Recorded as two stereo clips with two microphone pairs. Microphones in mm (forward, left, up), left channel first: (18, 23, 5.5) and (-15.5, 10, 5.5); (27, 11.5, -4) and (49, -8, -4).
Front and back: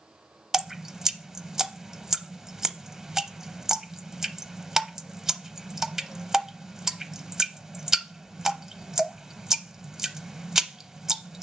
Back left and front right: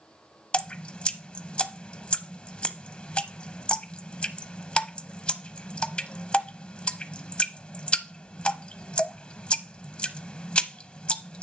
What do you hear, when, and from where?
0.5 s dripping: 135° left, 0.6 m